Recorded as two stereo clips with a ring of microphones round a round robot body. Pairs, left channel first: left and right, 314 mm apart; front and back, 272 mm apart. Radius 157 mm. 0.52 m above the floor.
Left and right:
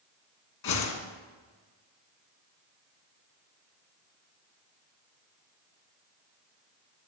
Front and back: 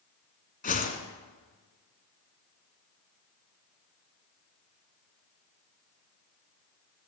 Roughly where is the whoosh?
Ahead left.